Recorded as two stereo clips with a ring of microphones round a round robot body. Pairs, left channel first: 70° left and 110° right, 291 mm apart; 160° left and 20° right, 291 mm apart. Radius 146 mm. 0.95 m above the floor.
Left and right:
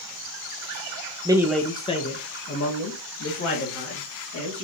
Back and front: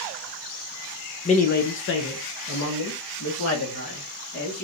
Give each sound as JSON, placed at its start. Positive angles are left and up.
{"t": 1.2, "sound": "a man speaking", "azimuth_deg": -165, "distance_m": 0.6}